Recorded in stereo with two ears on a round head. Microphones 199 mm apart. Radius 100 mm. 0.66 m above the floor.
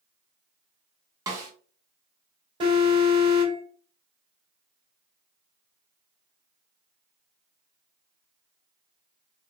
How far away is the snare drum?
About 0.8 m.